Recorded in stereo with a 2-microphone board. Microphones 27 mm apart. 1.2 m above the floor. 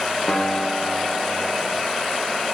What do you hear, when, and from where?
0.3 s a guitar: 45° left (ahead or behind), 1.2 m